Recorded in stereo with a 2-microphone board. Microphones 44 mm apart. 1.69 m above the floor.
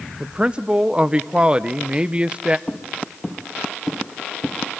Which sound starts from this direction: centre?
Footsteps, at 2.7 s.